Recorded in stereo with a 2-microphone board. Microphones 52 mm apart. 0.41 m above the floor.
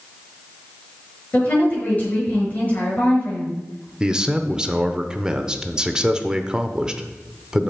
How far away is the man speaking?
About 0.8 m.